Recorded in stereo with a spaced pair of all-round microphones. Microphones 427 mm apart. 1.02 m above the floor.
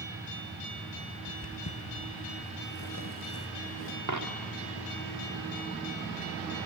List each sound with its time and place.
1.3 s footsteps: 35° left (ahead or behind), 1.6 m; by 4.0 s 30° left (ahead or behind), 1.3 m
4.1 s a dropped coin: 45° right (ahead or behind), 1.0 m